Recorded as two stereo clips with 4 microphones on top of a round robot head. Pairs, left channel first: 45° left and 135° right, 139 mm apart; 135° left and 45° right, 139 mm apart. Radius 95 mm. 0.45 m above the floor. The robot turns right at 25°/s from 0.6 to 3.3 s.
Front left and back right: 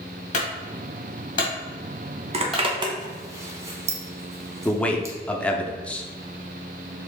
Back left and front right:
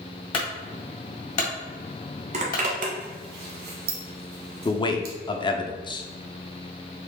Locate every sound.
0.3 s a clunk: 85° left, 1.8 m; by 2.6 s 135° left, 1.8 m
2.3 s a zipper: 90° right, 0.9 m; by 5.2 s 65° right, 0.9 m
4.7 s a man speaking: 120° left, 0.8 m